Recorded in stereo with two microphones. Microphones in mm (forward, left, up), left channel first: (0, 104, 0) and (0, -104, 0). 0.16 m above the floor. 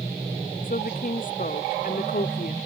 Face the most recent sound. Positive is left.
turn(degrees=40)  # may be behind; listen again after turning